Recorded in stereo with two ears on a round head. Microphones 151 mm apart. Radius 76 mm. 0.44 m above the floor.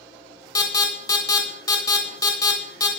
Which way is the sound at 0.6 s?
20° left (ahead or behind).